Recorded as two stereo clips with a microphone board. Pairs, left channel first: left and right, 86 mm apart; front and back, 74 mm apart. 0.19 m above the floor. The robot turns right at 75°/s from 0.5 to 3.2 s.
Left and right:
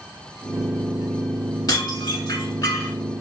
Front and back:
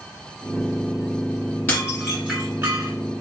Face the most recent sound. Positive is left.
turn(degrees=175)